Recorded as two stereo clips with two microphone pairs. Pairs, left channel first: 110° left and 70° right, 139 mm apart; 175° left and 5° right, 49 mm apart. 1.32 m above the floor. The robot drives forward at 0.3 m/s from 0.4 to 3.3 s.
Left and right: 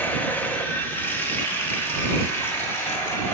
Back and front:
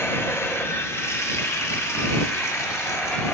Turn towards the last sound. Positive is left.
turn(degrees=-175)